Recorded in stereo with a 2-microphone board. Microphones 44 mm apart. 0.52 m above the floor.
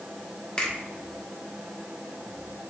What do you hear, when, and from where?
0.6 s a finger snap: 25° left (ahead or behind), 1.2 m